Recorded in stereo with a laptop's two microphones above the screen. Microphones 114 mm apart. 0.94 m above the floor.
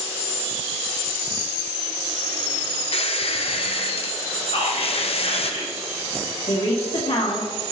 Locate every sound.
2.9 s a squeak: 60° left (ahead or behind), 0.6 m
4.5 s whispering: 65° left (ahead or behind), 1.9 m
6.5 s a woman speaking: 65° left (ahead or behind), 1.9 m